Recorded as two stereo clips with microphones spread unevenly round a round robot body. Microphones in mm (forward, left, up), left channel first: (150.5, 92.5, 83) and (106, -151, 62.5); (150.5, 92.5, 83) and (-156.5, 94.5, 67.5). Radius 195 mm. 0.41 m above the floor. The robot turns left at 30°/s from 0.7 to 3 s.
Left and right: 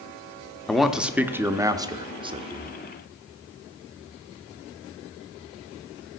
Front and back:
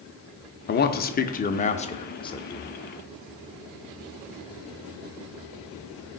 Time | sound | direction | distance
0.7 | a man speaking | 15° right | 0.9 m